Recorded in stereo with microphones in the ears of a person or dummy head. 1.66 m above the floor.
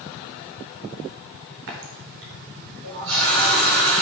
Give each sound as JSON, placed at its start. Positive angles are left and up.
{"t": 1.7, "sound": "a running tap", "side_deg": -70, "distance_m": 4.5}